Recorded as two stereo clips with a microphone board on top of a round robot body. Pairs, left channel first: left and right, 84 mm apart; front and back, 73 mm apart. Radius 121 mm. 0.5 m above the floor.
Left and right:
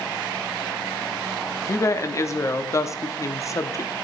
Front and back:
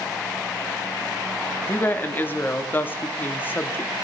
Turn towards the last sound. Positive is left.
turn(degrees=50)